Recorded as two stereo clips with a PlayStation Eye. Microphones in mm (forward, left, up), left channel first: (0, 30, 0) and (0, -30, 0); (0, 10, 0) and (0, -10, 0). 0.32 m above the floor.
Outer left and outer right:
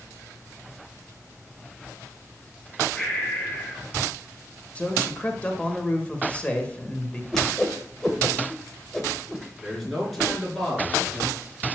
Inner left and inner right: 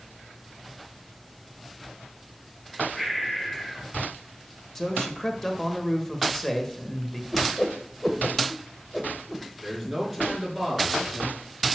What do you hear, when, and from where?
3.0 s breathing: 15° left (ahead or behind), 3.5 m
4.8 s a man speaking: 20° left (ahead or behind), 1.4 m
7.3 s a whoosh: 5° left (ahead or behind), 1.1 m
9.6 s a man speaking: 5° left (ahead or behind), 4.5 m